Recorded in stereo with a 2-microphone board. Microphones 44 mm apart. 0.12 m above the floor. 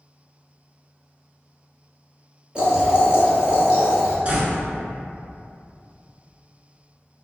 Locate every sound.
2.5 s boiling: 20° right (ahead or behind), 1.7 m
4.2 s a door slam: 25° right (ahead or behind), 1.3 m